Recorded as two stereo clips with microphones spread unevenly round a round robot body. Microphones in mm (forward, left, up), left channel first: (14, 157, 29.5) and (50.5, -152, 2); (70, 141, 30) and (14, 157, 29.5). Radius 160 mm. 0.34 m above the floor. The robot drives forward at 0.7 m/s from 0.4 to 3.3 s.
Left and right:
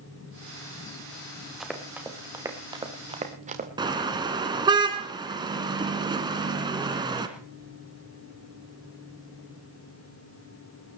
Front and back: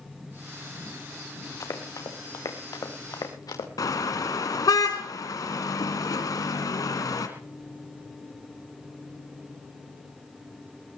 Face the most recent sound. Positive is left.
turn(degrees=-5)